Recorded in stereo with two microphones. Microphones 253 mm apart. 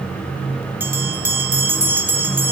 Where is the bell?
10° right (ahead or behind), 1.0 m.